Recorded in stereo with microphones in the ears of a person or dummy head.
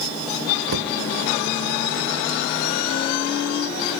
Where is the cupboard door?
70° right (ahead or behind), 1.0 m.